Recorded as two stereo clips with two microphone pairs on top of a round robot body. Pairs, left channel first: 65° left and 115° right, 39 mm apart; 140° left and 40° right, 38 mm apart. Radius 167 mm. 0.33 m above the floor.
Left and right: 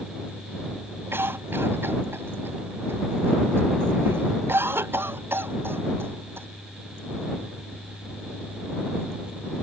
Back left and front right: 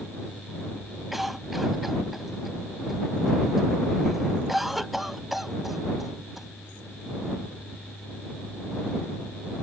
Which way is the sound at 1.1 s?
125° right.